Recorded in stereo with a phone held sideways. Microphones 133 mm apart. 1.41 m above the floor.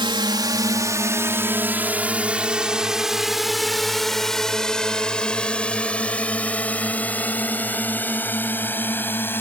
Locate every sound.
0.0 s a drone: 35° right (ahead or behind); by 9.4 s 15° left (ahead or behind)